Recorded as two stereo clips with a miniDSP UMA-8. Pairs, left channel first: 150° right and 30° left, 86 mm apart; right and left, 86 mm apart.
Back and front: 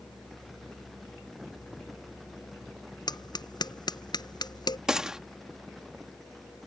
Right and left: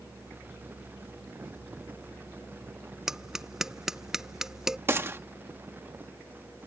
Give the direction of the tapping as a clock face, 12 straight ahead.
6 o'clock.